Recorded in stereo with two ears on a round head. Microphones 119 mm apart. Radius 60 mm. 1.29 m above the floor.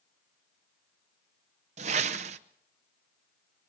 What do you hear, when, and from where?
1.8 s a whoosh: 50° right (ahead or behind), 0.8 m